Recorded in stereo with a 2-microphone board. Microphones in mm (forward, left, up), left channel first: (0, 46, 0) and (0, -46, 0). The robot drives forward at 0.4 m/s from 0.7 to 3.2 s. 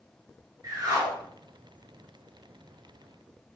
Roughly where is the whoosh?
Right.